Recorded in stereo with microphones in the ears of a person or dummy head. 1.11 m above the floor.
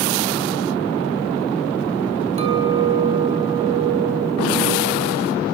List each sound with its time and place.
2.4 s a clink: 35° right (ahead or behind), 4 m